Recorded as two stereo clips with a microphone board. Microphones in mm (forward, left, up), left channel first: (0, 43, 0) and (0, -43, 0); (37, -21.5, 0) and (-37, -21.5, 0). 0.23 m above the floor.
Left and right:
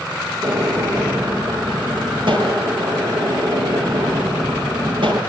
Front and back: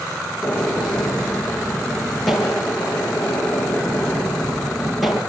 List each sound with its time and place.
0.4 s a gunshot: 90° right, 3.5 m